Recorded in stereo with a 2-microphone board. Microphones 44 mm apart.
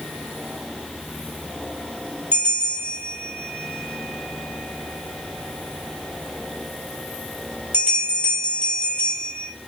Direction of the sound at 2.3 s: 40° right (ahead or behind).